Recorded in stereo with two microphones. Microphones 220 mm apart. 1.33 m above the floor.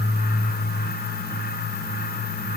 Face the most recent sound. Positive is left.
No sound to turn to.